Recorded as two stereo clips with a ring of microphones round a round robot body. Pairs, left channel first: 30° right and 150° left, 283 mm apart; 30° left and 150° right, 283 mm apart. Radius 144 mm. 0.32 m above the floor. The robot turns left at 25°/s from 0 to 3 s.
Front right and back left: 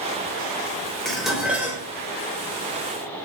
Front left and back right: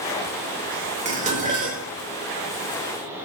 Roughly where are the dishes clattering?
Behind right.